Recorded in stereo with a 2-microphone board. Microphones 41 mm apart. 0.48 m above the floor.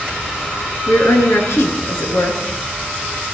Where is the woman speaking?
80° left, 6 m.